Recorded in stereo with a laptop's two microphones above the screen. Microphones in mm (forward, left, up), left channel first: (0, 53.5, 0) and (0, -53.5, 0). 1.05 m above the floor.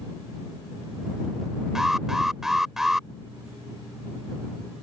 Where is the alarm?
5° right (ahead or behind).